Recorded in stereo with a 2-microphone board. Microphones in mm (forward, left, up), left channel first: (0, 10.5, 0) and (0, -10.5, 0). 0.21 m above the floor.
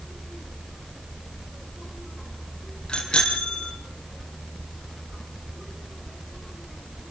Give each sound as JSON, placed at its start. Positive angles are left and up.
{"t": 2.9, "sound": "a bicycle bell", "side_deg": 40, "distance_m": 4.5}